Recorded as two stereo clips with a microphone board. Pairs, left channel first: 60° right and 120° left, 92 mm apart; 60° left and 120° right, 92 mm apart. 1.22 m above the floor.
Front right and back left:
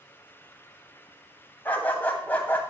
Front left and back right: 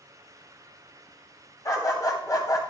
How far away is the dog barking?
About 2.5 m.